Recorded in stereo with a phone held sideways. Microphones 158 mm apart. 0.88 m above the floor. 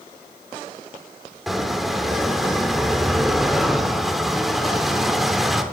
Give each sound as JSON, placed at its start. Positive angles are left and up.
{"t": 1.5, "sound": "a squeak", "side_deg": 0, "distance_m": 1.0}